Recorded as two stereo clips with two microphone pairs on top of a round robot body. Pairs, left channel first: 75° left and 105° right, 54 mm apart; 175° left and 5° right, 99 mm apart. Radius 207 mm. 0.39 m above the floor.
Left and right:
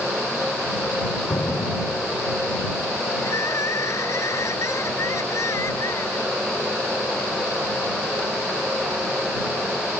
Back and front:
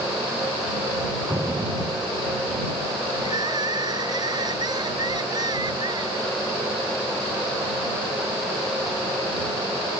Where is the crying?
45° left.